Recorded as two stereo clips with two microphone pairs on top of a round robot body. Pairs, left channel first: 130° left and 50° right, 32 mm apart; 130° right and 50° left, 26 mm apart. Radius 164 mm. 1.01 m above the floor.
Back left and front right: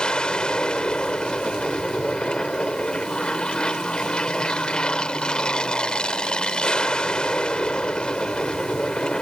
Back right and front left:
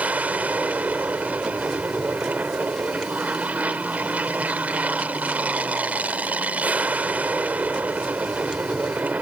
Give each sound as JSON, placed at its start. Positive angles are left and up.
{"t": 0.0, "sound": "an aircraft", "azimuth_deg": 70}